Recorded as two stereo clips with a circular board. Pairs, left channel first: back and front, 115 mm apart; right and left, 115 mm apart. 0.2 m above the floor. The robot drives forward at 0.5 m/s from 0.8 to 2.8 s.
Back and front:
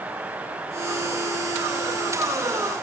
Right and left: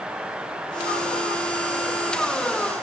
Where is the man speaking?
I don't hear a man speaking.